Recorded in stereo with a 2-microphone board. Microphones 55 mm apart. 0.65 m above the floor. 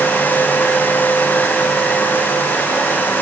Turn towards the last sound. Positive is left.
No sound to turn to.